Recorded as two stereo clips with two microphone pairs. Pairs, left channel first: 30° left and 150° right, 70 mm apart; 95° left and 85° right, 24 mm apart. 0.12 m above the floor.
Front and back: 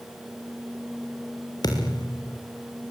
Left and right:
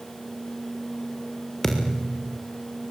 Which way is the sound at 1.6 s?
10° left.